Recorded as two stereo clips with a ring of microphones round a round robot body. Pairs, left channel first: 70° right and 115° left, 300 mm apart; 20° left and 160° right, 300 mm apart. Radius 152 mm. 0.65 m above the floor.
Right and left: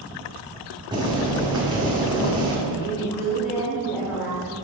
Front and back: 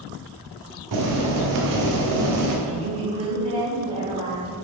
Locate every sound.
0.9 s boiling: 170° right, 1.2 m
2.7 s a woman speaking: 85° right, 2 m